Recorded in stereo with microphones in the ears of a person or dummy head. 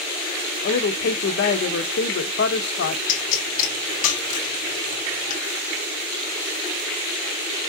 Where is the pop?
50° left (ahead or behind), 1.5 m.